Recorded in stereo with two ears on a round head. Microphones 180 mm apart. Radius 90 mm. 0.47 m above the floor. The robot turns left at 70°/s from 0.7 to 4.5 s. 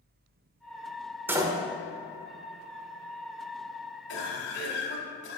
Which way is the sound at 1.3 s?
10° right (ahead or behind).